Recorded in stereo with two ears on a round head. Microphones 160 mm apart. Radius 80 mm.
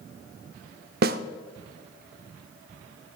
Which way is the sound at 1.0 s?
55° right (ahead or behind).